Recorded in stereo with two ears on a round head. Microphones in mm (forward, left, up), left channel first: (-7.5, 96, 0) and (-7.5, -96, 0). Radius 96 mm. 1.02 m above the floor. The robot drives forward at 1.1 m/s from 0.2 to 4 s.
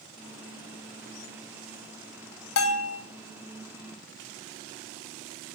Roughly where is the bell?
Left.